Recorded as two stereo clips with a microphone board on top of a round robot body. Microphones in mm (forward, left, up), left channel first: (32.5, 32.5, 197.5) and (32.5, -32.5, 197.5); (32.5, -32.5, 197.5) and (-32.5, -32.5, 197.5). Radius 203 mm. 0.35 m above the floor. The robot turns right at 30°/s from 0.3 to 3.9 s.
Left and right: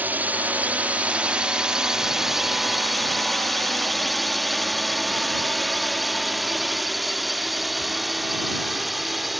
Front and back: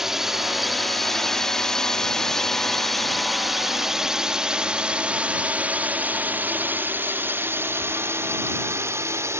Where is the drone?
105° right; by 9.4 s straight behind.